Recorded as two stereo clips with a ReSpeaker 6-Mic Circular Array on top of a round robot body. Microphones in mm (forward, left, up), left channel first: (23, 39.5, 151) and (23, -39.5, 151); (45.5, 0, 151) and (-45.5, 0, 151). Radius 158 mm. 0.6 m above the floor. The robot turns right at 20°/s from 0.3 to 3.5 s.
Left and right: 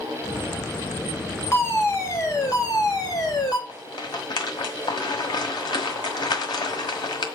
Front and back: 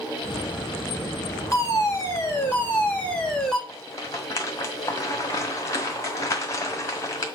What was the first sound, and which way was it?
A fire alarm, 40° left.